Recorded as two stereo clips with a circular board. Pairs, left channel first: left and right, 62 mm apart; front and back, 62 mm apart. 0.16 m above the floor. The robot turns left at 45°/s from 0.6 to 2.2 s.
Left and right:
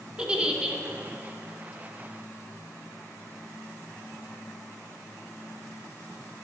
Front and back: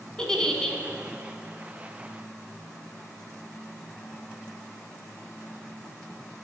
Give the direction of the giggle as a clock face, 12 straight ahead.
2 o'clock.